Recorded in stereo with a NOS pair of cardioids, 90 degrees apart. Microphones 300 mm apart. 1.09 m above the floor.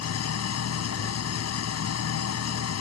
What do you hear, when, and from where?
0.0 s an engine running: 55° left